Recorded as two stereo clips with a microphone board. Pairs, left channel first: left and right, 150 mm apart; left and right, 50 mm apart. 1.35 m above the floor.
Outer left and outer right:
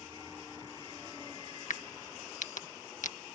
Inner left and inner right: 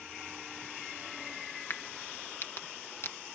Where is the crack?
55° left (ahead or behind).